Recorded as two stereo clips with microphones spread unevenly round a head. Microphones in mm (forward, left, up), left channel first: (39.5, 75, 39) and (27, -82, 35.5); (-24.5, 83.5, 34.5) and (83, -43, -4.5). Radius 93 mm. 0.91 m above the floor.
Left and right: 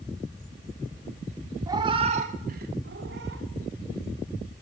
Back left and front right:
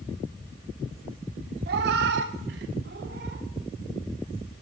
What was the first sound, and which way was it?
A cat meowing, 30° right.